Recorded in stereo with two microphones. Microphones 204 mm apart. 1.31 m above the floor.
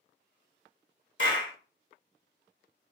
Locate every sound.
1.2 s a clap: 65° left (ahead or behind), 1.2 m